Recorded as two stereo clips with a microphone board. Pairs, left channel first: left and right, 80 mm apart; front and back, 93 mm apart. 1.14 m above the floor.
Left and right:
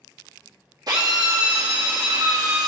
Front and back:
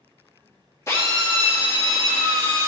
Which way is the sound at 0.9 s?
55° right.